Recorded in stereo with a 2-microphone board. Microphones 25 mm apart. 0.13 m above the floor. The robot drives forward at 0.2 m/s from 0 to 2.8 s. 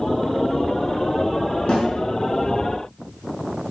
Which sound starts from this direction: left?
A snare drum, at 1.7 s.